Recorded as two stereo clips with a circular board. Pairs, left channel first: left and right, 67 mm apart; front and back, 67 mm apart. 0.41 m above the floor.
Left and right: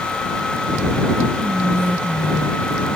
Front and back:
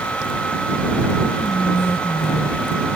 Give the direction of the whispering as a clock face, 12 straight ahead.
1 o'clock.